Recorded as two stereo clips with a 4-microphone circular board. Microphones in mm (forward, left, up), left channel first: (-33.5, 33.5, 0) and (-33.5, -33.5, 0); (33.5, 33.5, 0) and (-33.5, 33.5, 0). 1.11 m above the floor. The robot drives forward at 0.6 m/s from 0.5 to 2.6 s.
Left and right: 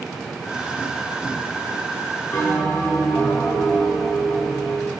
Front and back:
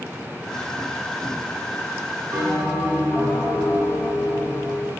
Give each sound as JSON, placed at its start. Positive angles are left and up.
{"t": 2.3, "sound": "a bell", "azimuth_deg": 145, "distance_m": 6.5}